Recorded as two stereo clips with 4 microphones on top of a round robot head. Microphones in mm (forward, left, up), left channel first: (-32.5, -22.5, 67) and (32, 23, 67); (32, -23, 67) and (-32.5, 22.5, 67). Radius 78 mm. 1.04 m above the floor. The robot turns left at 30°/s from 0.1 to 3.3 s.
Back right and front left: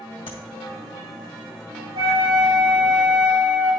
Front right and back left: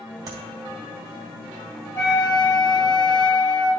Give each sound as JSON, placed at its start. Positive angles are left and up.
{"t": 0.3, "sound": "tapping", "azimuth_deg": -170, "distance_m": 2.5}
{"t": 1.9, "sound": "a flute", "azimuth_deg": 30, "distance_m": 2.5}